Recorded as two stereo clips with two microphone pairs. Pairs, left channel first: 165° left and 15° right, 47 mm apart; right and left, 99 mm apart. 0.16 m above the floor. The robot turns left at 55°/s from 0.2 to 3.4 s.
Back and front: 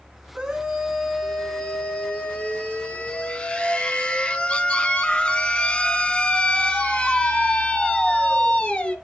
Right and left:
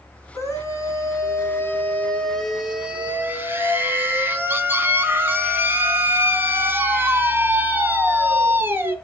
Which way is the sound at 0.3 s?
65° right.